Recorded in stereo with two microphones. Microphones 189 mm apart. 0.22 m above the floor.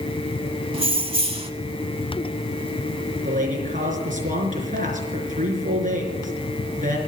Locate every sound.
0.7 s keys jangling: 30° right (ahead or behind), 1.0 m
3.2 s a man speaking: 45° right (ahead or behind), 4 m